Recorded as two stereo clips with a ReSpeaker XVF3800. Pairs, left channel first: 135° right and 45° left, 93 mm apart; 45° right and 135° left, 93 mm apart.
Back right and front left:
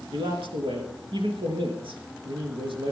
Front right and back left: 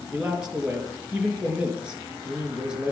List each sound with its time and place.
0.1 s a man speaking: 55° left, 3.5 m